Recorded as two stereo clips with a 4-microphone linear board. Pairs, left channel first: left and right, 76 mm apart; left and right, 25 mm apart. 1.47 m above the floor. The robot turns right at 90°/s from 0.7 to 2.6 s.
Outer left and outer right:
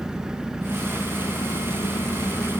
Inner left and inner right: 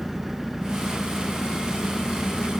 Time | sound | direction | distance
0.0 | an engine running | 10° right | 1.0 m